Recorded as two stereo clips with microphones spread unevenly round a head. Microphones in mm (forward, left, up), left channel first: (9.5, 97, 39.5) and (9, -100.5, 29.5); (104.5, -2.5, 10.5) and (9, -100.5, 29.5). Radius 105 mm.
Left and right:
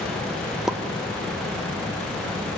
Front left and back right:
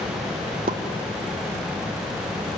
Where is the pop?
175° right, 1.0 m.